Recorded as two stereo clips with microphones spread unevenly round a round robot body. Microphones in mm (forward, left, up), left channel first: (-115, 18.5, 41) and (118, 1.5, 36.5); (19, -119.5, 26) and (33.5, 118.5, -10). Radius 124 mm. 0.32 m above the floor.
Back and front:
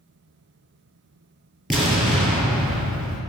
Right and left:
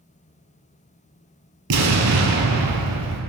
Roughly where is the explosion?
Left.